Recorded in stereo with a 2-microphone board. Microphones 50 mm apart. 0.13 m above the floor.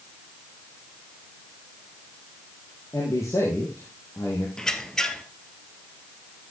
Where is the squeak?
10° left (ahead or behind), 1.3 m.